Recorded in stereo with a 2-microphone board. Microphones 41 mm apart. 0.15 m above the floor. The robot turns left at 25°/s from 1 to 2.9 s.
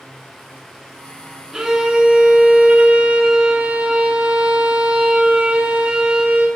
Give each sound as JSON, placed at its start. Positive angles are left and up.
{"t": 1.5, "sound": "a violin", "azimuth_deg": -15, "distance_m": 0.8}